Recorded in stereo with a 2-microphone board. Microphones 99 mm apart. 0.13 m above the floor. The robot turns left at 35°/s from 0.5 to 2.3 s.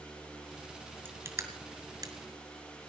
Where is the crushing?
25° right (ahead or behind), 2.5 m; by 2.1 s 40° right (ahead or behind), 2.5 m.